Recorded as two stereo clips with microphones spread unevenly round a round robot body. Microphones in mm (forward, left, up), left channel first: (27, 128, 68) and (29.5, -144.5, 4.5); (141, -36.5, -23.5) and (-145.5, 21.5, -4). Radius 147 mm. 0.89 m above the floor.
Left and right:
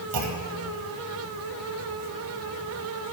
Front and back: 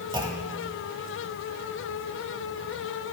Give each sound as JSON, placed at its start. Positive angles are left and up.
{"t": 0.1, "sound": "a clunk", "azimuth_deg": -115, "distance_m": 1.6}